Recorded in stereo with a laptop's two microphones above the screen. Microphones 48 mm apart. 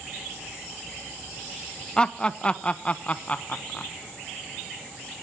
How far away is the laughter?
About 1.0 m.